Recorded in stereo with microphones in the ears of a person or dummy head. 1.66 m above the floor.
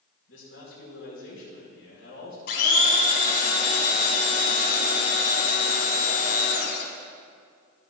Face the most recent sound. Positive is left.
turn(degrees=55)  # may be behind; listen again after turning